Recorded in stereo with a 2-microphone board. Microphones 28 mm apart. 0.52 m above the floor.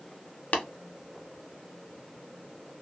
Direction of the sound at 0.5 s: 70° left (ahead or behind).